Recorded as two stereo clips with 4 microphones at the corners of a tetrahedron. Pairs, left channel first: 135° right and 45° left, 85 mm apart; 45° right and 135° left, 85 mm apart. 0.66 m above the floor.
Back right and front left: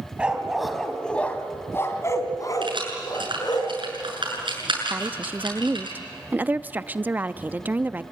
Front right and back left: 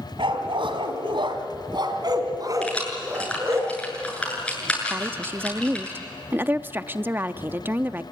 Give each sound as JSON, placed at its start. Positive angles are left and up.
{"t": 0.2, "sound": "a dog barking", "azimuth_deg": 120, "distance_m": 2.0}
{"t": 2.6, "sound": "keys jangling", "azimuth_deg": 30, "distance_m": 7.5}
{"t": 4.9, "sound": "a woman speaking", "azimuth_deg": 95, "distance_m": 0.6}